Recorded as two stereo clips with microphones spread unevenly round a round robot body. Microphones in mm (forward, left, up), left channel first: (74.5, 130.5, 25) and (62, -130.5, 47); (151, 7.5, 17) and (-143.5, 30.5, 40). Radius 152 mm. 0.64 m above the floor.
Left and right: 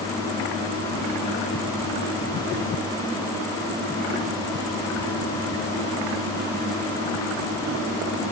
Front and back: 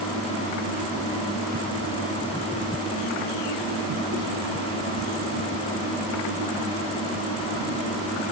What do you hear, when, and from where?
Only background noise.